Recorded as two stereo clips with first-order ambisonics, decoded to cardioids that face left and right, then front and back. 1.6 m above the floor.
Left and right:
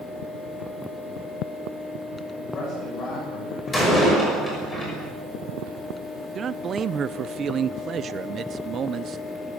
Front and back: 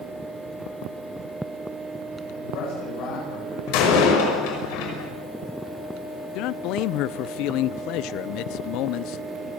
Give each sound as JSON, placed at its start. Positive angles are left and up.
{"t": 2.4, "sound": "a man speaking", "azimuth_deg": 25, "distance_m": 9.5}
{"t": 3.7, "sound": "a door slam", "azimuth_deg": 5, "distance_m": 6.0}
{"t": 6.3, "sound": "a man speaking", "azimuth_deg": -30, "distance_m": 0.7}